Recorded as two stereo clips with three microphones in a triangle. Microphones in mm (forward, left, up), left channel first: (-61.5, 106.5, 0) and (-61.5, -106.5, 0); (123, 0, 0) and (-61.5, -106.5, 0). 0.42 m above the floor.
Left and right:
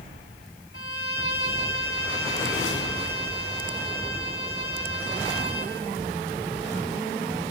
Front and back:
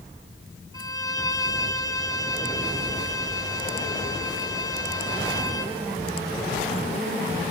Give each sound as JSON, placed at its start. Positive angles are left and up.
{"t": 0.7, "sound": "a violin", "azimuth_deg": 105, "distance_m": 3.0}